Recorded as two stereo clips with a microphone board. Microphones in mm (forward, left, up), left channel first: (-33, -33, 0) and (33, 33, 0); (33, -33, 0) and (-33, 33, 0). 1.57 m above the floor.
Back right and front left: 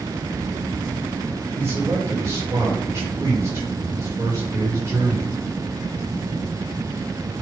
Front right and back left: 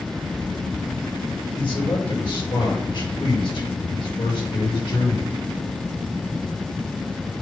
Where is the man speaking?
15° right, 5 m.